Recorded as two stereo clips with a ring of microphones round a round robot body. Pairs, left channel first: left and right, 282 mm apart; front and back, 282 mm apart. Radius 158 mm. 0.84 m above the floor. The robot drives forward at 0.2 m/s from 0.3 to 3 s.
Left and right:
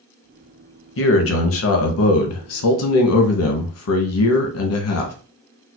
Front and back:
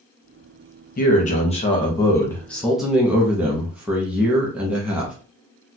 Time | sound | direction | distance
1.0 | a man speaking | 55° left | 0.8 m